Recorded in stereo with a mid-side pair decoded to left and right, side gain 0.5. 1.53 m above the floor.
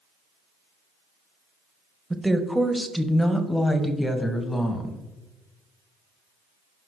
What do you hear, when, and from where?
2.1 s a woman speaking: 15° right, 1.4 m; by 5.0 s 25° left, 2.5 m